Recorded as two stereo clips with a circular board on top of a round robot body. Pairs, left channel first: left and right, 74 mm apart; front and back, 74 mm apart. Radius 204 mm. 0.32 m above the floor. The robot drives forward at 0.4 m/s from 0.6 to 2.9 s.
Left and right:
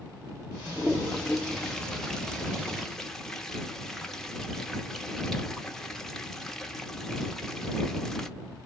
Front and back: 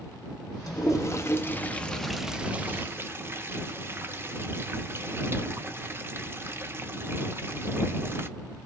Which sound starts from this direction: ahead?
A toilet flushing, at 0.7 s.